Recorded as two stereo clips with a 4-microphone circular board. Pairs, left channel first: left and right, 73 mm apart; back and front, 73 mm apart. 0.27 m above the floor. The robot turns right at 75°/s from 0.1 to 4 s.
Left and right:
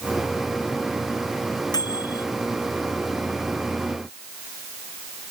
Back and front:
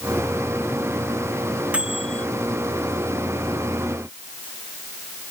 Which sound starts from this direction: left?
A microwave, at 1.7 s.